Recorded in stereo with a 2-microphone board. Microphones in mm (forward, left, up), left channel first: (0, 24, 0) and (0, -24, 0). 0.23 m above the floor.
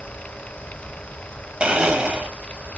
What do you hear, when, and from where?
1.6 s a blender: 20° right (ahead or behind), 0.8 m